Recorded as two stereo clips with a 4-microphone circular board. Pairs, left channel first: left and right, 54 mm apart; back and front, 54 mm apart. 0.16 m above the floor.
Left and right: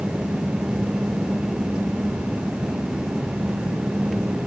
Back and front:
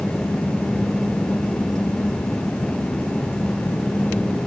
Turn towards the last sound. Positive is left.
No sound to turn to.